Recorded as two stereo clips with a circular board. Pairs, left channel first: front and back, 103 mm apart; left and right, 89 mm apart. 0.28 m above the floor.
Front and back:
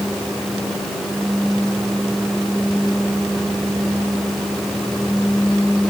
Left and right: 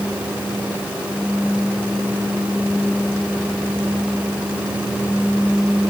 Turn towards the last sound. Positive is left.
No sound to turn to.